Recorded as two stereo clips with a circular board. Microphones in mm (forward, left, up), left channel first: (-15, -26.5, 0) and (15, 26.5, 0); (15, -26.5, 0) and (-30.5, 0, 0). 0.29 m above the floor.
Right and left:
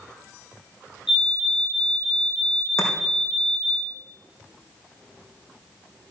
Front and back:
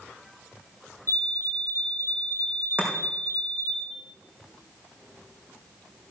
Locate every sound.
1.1 s a fire alarm: 140° left, 7.5 m
2.8 s chopping: 150° right, 4 m